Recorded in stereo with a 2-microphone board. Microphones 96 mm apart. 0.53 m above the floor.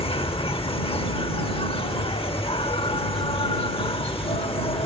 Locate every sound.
0.0 s an insect: 75° left (ahead or behind)